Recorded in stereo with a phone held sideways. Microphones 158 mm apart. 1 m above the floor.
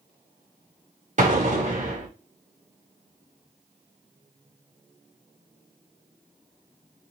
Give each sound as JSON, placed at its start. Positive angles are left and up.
{"t": 1.2, "sound": "an explosion", "side_deg": -55, "distance_m": 1.5}